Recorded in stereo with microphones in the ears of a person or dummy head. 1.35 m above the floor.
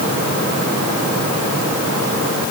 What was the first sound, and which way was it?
Only background noise.